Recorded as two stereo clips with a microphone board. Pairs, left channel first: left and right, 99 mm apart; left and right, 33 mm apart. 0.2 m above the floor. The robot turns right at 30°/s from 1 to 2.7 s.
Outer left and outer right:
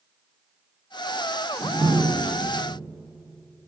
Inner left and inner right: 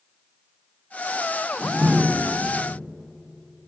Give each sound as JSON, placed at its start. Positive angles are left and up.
{"t": 1.6, "sound": "a door slam", "azimuth_deg": -110, "distance_m": 1.2}